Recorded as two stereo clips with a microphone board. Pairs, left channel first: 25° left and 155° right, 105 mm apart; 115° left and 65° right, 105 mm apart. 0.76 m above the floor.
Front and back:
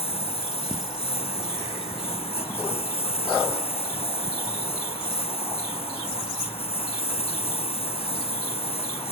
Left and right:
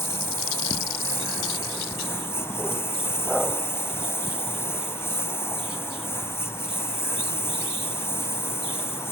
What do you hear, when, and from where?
0.0 s a lawn mower: 45° left